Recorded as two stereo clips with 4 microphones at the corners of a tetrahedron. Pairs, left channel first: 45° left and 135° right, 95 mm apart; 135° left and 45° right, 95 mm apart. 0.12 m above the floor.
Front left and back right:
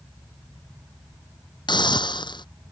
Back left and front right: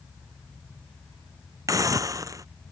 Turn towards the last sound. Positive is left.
turn(degrees=10)